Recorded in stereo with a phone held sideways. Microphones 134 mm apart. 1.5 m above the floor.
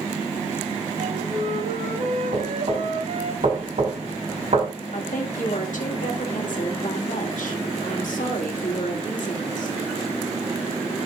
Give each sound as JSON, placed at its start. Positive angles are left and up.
{"t": 1.0, "sound": "a flute", "side_deg": -60, "distance_m": 5.5}
{"t": 2.3, "sound": "knocking", "side_deg": -55, "distance_m": 5.5}
{"t": 4.9, "sound": "a woman speaking", "side_deg": 75, "distance_m": 2.0}